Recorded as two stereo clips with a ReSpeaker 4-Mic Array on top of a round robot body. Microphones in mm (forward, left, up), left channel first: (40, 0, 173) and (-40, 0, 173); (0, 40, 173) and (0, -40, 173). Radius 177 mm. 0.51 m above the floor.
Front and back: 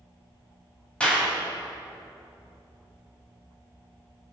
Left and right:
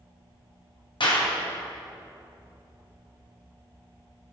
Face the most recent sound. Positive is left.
turn(degrees=75)